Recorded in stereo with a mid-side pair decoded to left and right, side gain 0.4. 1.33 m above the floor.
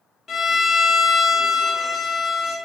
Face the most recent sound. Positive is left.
turn(degrees=55)